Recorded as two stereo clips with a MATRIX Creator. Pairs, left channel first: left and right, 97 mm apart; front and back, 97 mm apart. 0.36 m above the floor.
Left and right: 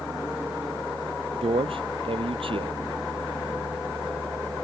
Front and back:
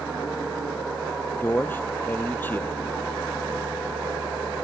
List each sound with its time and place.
1.4 s a man speaking: 70° right